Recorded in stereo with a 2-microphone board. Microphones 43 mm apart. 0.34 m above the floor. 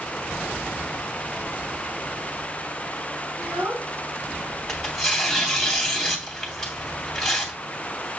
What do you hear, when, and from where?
3.4 s a child speaking: 35° right (ahead or behind), 3 m
4.7 s tearing paper: 5° left (ahead or behind), 2.5 m